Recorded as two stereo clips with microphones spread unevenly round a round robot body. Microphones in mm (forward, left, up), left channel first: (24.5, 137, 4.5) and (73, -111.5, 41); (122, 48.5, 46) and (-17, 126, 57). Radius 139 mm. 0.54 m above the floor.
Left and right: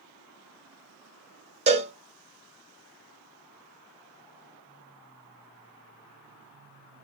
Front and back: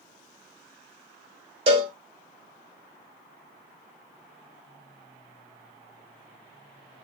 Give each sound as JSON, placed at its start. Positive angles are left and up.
{"t": 1.7, "sound": "a cowbell", "azimuth_deg": -150, "distance_m": 0.7}